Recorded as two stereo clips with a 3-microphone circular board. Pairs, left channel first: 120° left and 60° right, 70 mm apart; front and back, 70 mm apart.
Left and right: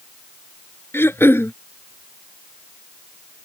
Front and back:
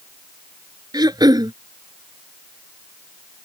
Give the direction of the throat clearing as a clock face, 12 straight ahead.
6 o'clock.